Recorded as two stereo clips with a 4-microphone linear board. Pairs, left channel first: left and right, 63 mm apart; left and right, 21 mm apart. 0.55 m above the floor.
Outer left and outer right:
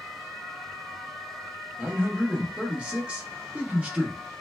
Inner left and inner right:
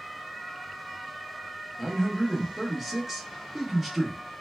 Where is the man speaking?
20° right (ahead or behind), 0.7 m.